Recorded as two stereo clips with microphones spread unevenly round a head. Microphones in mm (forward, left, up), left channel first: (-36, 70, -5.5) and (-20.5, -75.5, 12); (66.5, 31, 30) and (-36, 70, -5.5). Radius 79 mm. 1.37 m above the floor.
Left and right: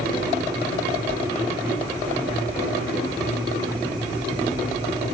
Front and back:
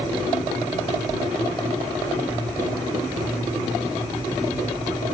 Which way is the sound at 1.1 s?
20° left.